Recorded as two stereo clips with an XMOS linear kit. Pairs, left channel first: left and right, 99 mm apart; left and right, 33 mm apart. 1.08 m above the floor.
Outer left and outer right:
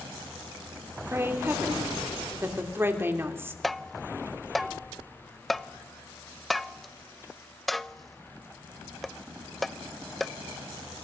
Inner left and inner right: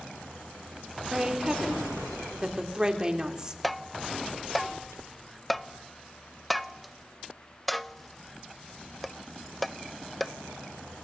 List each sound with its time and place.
1.1 s a woman speaking: 25° right (ahead or behind), 3.5 m
3.6 s tapping: centre (ahead or behind), 0.6 m